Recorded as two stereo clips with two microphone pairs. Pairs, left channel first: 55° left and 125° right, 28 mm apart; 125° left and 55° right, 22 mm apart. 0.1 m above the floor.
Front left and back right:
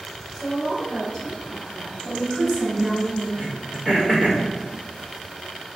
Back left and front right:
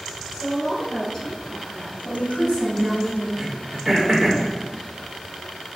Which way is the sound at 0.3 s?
75° left.